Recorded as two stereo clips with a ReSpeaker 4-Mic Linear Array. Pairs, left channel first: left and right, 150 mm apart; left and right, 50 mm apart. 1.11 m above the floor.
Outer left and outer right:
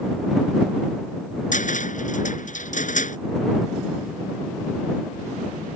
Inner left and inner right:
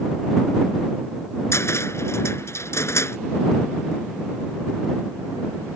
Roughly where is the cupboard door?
Left.